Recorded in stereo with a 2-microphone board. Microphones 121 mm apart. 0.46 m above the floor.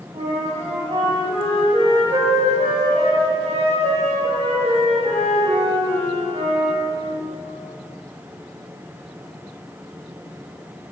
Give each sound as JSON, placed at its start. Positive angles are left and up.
{"t": 0.1, "sound": "a flute", "side_deg": -55, "distance_m": 0.7}